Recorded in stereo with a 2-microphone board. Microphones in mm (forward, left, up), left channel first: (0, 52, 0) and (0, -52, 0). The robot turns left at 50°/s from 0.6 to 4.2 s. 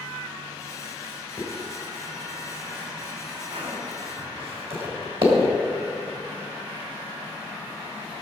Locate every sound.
1.4 s a zipper: 25° left (ahead or behind), 3 m; by 5.5 s 60° right (ahead or behind), 3 m